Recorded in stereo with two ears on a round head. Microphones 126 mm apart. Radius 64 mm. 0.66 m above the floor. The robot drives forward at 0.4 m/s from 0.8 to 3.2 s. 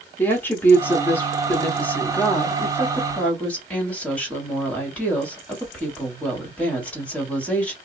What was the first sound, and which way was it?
A woman speaking, 15° left (ahead or behind).